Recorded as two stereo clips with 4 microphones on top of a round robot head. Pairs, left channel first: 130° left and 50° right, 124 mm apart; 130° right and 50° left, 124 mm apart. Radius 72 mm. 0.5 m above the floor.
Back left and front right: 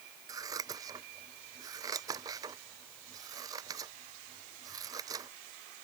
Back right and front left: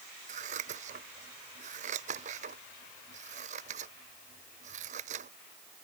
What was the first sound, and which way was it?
Scissors, 15° left.